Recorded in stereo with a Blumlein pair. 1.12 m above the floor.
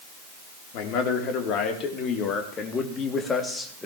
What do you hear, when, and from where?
0.7 s a man speaking: 40° left, 3 m; by 3.9 s 5° left, 2 m